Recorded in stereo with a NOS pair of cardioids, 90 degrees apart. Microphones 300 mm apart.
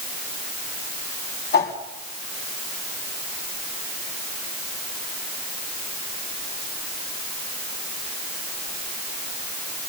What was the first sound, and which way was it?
A whoosh, 40° left.